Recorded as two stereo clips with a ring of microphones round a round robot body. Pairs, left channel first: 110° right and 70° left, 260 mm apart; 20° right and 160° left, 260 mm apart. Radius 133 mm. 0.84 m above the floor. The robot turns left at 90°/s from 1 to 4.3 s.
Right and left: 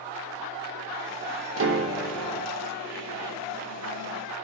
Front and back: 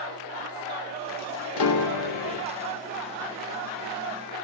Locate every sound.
1.6 s a piano: 25° left, 1.1 m; by 2.5 s 65° right, 1.1 m